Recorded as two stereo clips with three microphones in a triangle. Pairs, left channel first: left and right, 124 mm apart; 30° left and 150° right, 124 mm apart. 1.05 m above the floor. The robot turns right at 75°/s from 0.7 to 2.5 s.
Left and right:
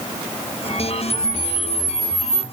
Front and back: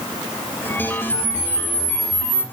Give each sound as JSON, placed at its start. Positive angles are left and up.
{"t": 1.1, "sound": "a camera shutter", "azimuth_deg": -55, "distance_m": 1.7}